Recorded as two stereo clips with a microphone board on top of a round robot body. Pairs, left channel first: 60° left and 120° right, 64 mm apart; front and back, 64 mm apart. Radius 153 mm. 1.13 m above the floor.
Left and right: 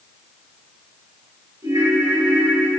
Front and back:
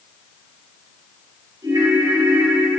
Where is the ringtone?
155° right, 3 m.